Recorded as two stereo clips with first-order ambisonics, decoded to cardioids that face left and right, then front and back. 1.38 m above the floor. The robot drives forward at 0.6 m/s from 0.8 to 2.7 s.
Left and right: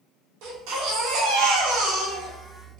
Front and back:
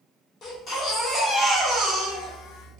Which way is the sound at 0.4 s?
65° right.